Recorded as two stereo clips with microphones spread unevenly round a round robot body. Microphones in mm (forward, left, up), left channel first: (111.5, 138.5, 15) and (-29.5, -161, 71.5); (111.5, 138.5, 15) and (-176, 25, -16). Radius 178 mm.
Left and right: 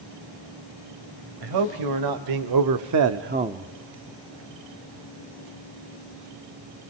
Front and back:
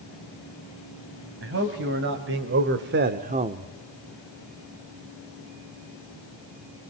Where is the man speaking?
105° right, 2.5 m; by 3.7 s 140° left, 1.0 m.